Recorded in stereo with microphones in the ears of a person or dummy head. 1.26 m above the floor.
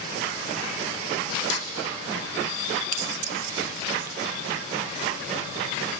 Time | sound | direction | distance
1.5 | a snare drum | 80° left | 2.5 m
2.9 | keys jangling | 55° right (ahead or behind) | 0.8 m